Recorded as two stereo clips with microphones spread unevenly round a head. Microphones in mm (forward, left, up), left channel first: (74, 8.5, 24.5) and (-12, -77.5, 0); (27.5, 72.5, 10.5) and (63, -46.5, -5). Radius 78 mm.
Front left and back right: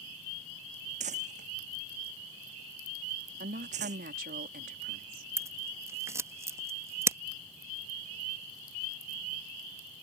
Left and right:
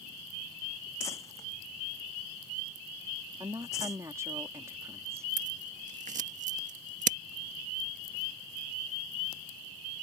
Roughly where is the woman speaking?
Behind right.